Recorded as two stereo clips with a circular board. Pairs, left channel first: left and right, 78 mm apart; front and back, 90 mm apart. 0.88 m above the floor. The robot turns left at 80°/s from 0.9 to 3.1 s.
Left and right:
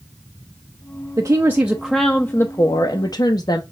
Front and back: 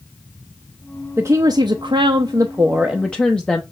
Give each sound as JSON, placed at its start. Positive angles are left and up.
{"t": 1.2, "sound": "a woman speaking", "azimuth_deg": -125, "distance_m": 0.6}